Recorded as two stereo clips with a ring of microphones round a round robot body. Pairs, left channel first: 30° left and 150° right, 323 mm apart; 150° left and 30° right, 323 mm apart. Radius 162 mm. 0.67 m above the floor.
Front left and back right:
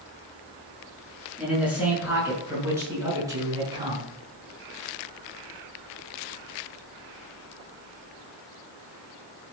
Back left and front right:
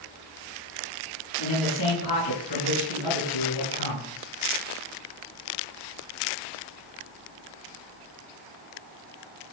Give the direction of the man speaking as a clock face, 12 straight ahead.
8 o'clock.